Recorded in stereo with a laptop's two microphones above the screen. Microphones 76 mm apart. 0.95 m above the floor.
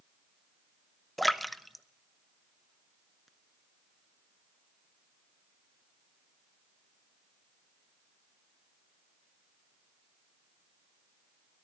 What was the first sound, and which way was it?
A splash, centre (ahead or behind).